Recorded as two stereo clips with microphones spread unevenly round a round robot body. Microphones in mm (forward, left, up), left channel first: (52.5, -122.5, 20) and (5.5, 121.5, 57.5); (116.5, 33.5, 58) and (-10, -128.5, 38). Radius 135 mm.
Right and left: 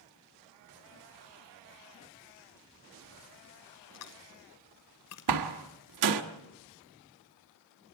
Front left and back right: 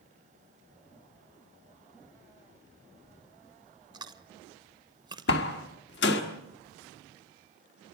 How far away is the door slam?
About 1.5 m.